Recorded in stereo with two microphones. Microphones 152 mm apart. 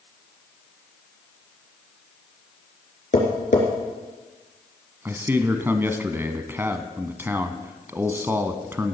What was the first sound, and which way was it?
Tapping, 55° left (ahead or behind).